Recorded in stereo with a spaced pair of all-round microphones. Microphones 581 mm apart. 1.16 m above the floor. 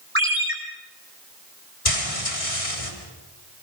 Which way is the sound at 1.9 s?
70° left (ahead or behind).